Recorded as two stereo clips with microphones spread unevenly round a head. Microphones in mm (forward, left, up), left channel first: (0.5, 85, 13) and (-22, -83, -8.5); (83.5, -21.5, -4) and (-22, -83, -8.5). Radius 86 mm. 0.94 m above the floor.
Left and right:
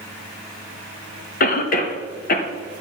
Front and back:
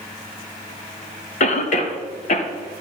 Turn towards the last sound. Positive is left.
turn(degrees=45)